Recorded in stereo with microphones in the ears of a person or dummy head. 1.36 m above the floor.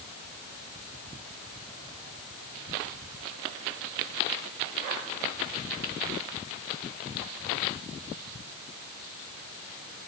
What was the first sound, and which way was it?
Only background noise.